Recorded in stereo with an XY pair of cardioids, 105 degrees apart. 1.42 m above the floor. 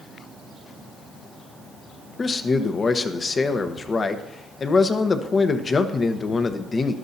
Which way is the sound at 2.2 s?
35° left.